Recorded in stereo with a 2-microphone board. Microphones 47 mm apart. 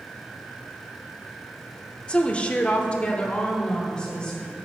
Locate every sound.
2.1 s a woman speaking: 20° left (ahead or behind), 0.8 m